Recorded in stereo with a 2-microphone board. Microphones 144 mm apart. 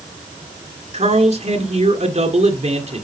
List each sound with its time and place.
0.9 s a man speaking: 50° right (ahead or behind), 1.6 m